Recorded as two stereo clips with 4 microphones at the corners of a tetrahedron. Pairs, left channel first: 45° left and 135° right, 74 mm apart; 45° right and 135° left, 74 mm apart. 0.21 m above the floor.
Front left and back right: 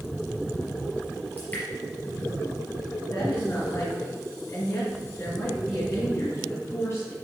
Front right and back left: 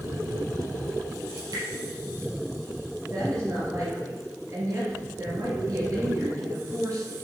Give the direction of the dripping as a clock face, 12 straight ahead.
8 o'clock.